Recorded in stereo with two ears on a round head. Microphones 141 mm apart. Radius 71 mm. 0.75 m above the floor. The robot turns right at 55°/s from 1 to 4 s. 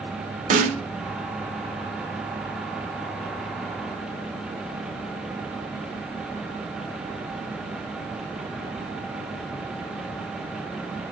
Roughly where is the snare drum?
Right.